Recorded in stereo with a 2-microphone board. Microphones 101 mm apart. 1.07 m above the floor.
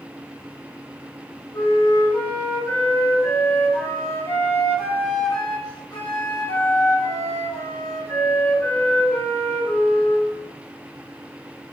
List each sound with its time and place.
1.5 s a flute: 25° left (ahead or behind), 0.9 m